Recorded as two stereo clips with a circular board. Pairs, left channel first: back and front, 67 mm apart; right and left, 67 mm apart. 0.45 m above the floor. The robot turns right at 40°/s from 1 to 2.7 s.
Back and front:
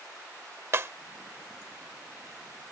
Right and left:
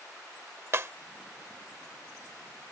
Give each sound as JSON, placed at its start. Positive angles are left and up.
{"t": 0.7, "sound": "breaking glass", "azimuth_deg": 45}